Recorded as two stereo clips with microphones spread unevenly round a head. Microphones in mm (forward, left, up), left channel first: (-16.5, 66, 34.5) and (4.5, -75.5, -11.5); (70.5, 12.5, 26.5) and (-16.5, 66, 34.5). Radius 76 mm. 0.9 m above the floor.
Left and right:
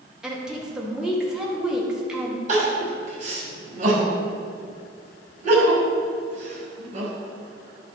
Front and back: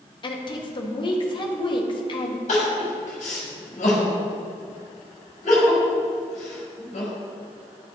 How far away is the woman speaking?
About 1.6 m.